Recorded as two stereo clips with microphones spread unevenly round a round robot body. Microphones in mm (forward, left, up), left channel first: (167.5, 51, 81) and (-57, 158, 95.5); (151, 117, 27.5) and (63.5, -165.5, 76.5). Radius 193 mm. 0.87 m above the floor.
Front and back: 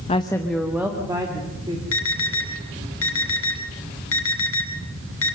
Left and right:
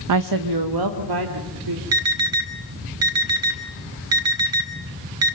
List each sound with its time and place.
0.1 s a woman speaking: 85° right, 0.7 m; by 1.8 s 130° right, 2.5 m
1.9 s an alarm: 70° right, 3 m